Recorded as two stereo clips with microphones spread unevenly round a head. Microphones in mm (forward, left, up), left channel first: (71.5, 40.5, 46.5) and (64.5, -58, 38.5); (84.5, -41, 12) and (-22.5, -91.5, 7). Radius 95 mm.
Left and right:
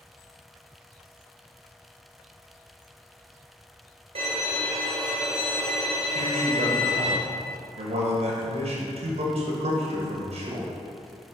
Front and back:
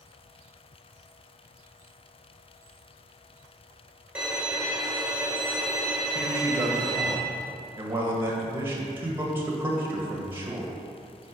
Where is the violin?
75° right, 1.5 m.